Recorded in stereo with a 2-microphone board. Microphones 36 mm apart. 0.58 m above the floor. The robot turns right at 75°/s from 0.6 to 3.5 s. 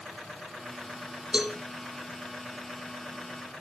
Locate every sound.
1.3 s a cowbell: 25° right (ahead or behind), 1.1 m; by 1.6 s 10° right (ahead or behind), 1.1 m